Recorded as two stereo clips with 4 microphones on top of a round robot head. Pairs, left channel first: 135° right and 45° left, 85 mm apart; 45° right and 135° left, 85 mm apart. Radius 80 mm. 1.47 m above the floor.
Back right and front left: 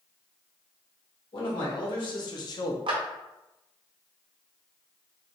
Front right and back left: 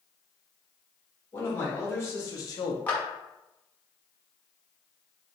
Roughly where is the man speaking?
Right.